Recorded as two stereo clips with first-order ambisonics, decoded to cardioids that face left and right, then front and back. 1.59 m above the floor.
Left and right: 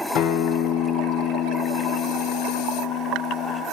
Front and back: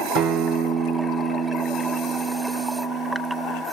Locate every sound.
0.1 s a guitar: 130° left, 0.8 m